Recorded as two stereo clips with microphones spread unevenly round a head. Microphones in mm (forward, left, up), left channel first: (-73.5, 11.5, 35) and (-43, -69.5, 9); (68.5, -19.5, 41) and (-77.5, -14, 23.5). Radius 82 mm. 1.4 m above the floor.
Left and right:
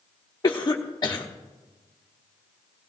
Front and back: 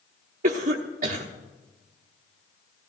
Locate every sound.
0.4 s a cough: 165° left, 1.1 m